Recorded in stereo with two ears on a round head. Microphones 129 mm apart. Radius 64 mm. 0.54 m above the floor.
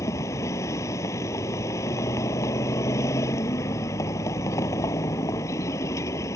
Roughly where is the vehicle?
Left.